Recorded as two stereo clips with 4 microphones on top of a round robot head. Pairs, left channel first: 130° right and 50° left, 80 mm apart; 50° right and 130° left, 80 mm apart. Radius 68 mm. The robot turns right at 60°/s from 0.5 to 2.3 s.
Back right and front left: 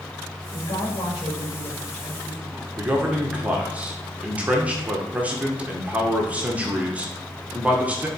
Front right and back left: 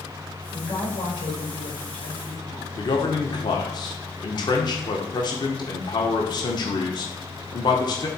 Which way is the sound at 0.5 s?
130° right.